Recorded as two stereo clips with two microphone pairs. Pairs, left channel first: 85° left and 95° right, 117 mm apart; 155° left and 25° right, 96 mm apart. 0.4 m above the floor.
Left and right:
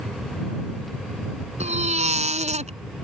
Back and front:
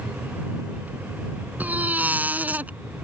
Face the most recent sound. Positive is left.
turn(degrees=-100)